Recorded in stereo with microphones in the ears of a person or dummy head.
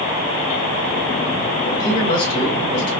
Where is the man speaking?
70° left (ahead or behind), 1.8 m.